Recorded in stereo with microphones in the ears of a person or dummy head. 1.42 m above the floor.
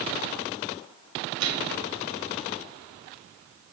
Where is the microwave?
80° right, 2.5 m.